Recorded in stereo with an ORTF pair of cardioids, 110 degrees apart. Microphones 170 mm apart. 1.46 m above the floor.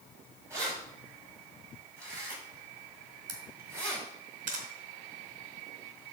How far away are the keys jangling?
About 6.5 m.